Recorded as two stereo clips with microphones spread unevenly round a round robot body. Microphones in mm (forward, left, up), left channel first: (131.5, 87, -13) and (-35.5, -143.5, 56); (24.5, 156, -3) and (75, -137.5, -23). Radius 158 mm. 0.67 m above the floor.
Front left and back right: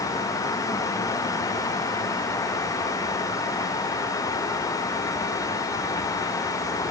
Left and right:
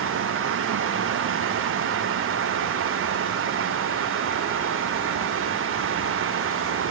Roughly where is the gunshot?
No gunshot in this recording.